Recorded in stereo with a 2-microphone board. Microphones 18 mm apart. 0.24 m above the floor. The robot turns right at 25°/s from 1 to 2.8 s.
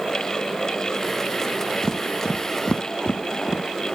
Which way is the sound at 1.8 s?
40° left (ahead or behind).